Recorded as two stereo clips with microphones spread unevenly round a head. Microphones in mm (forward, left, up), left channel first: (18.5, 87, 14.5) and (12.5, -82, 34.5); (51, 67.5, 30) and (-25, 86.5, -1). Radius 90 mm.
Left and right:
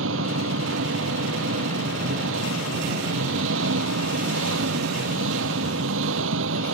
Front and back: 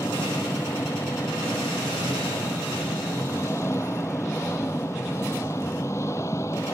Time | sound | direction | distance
0.0 | an engine running | 85° right | ?